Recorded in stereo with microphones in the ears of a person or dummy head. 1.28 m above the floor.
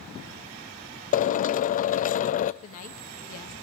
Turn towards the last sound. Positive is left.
turn(degrees=50)  # may be behind; listen again after turning